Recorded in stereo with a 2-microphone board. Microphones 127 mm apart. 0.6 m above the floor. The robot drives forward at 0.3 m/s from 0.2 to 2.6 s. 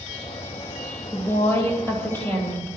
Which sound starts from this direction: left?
A woman speaking, at 1.1 s.